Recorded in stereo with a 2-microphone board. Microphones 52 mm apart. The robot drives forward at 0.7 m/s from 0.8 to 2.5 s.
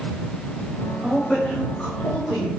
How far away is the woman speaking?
About 1.1 m.